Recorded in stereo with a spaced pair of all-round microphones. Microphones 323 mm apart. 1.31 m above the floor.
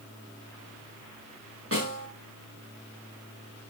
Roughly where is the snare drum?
Right.